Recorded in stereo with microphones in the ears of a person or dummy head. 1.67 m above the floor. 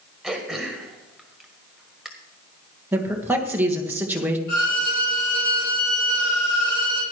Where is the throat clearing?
Centre (ahead or behind), 1.6 m.